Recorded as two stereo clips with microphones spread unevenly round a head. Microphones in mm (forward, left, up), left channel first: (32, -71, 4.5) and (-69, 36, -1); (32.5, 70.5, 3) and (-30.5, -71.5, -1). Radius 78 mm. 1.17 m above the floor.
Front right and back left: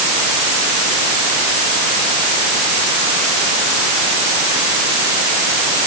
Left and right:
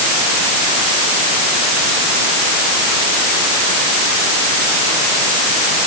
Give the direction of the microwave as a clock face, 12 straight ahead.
I don't hear a microwave.